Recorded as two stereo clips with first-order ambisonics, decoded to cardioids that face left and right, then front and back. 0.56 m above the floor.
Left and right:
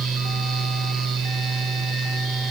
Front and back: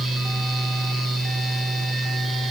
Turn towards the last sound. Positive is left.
No sound to turn to.